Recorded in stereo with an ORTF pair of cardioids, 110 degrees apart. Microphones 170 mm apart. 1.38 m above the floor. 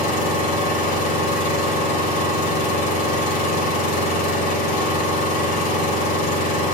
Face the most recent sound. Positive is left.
turn(degrees=65)